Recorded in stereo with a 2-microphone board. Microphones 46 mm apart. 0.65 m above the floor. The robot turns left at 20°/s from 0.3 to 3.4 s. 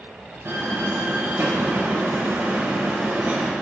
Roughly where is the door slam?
Right.